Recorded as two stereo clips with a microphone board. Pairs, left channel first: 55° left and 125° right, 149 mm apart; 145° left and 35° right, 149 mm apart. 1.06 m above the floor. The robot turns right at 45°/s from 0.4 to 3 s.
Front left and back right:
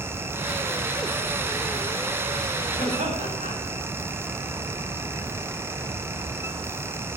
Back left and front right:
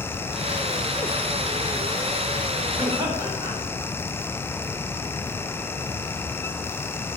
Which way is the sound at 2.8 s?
105° right.